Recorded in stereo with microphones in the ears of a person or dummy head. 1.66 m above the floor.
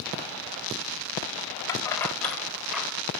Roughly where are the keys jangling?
Centre.